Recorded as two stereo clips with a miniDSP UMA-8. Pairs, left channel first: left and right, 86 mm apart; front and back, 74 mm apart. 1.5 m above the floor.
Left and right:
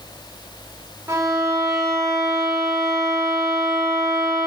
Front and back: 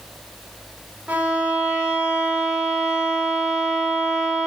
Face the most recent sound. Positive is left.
turn(degrees=-120)